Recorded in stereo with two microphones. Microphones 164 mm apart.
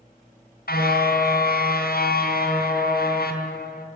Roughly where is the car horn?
Left.